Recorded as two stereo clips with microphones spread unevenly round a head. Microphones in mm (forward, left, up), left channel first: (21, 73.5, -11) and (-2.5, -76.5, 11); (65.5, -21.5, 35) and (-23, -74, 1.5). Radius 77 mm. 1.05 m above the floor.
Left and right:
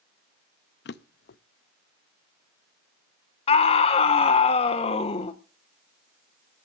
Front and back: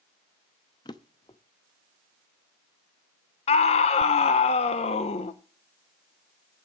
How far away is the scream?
About 0.7 m.